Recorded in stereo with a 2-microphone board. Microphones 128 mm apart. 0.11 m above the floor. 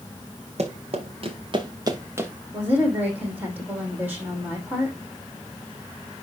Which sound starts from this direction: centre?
A woman speaking, at 2.5 s.